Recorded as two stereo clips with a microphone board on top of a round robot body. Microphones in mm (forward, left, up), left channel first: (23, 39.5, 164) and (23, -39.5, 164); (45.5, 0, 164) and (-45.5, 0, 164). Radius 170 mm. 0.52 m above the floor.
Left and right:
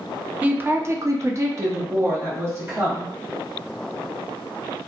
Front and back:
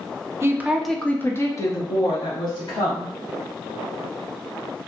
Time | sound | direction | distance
0.4 | a woman speaking | 145° right | 0.7 m